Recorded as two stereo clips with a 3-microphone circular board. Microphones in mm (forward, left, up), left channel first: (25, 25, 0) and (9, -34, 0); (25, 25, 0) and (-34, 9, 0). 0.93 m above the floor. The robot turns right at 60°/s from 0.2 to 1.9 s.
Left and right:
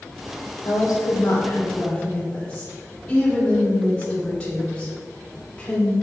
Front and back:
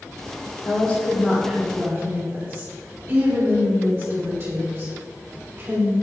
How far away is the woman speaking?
About 3 m.